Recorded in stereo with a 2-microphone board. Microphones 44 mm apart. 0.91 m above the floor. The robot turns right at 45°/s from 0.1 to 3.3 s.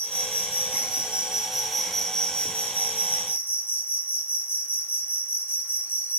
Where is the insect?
75° right, 1.6 m; by 6.2 s 70° left, 1.6 m.